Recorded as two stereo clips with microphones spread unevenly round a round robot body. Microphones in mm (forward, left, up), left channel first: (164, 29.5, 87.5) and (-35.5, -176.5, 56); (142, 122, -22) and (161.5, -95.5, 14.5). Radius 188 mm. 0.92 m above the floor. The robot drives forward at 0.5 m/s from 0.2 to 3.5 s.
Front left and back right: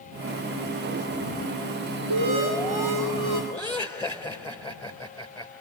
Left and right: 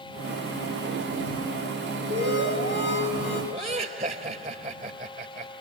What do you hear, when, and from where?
2.1 s an alarm: 145° right, 3.5 m; by 3.4 s 150° right, 4 m
3.5 s laughter: 35° right, 3.5 m